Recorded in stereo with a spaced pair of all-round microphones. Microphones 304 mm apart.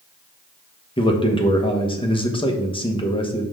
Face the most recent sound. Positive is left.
turn(degrees=15)  # may be behind; listen again after turning